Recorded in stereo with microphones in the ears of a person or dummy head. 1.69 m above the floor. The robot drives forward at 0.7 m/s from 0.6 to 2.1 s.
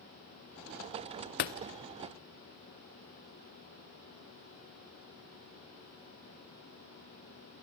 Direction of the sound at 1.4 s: 45° left (ahead or behind).